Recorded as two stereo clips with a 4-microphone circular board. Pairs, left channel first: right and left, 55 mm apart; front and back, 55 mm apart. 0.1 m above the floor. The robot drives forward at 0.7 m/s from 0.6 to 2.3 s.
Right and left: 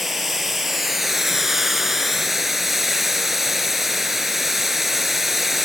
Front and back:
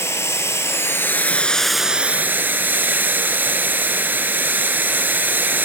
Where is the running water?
5° left, 1.0 m; by 5.6 s 175° left, 0.7 m.